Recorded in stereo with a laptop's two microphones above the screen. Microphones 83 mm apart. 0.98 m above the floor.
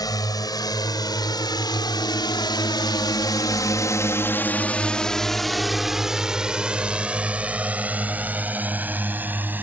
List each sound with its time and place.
0.0 s a drone: 50° left (ahead or behind); by 9.6 s 20° right (ahead or behind)